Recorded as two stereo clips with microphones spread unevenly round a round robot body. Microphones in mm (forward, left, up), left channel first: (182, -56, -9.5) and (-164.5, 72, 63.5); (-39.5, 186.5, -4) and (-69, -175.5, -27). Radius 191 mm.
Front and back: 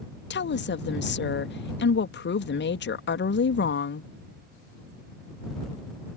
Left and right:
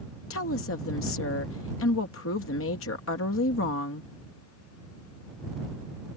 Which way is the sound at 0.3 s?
30° left.